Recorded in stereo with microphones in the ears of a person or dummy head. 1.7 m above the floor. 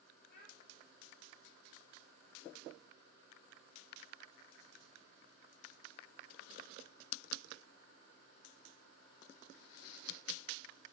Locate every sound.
0.3 s a child speaking: 55° left (ahead or behind), 3.5 m